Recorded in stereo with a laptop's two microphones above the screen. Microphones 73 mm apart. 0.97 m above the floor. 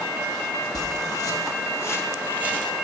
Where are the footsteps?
60° left (ahead or behind), 1.8 m; by 2.7 s 20° left (ahead or behind), 1.8 m.